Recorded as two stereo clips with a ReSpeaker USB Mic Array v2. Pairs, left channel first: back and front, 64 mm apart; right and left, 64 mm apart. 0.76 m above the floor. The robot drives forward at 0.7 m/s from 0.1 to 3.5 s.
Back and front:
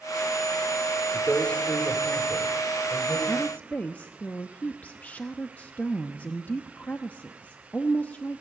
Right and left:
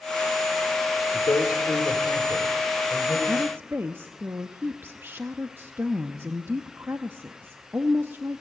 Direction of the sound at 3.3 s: 115° left.